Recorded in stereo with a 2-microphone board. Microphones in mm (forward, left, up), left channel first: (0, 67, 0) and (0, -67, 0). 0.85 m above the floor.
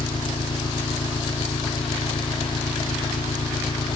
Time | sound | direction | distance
0.0 | an engine running | 35° left (ahead or behind) | ?